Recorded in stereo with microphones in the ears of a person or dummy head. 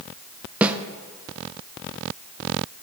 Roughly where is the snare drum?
Centre.